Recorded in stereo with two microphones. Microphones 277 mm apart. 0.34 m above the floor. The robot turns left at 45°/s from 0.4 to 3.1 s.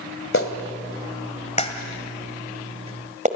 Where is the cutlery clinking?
No cutlery clinking in this recording.